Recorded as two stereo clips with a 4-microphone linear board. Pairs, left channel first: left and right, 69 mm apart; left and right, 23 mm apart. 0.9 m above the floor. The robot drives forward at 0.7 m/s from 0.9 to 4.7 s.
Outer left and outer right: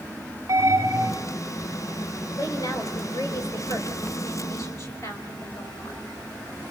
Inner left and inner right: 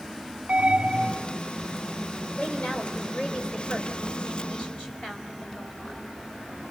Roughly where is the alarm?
Right.